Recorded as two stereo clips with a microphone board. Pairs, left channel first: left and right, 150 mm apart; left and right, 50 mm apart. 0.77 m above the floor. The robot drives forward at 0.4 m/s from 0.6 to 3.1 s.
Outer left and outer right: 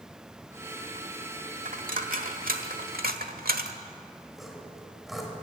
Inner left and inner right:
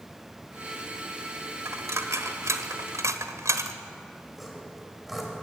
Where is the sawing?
Centre (ahead or behind), 4 m.